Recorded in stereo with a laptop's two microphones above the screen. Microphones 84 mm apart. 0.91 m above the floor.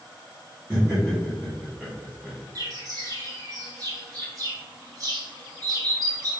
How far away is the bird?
About 1.3 m.